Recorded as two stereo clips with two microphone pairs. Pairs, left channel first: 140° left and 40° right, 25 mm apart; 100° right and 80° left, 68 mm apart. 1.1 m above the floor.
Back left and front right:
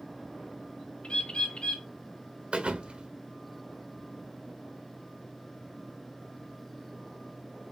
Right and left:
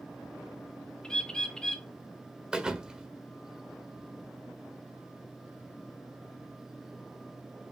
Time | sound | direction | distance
1.0 | a bird | straight behind | 1.9 m
2.5 | a thud | straight ahead | 1.5 m